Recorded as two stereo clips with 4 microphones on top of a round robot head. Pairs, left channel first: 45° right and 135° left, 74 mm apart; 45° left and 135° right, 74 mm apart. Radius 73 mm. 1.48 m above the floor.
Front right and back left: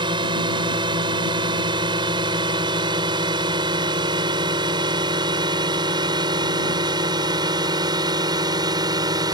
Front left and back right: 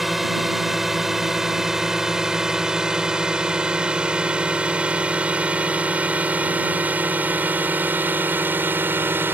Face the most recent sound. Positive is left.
turn(degrees=165)